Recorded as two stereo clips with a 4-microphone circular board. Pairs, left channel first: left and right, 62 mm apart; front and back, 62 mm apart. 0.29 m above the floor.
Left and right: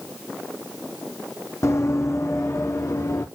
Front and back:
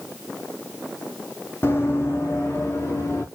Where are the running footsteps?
50° left, 0.8 m.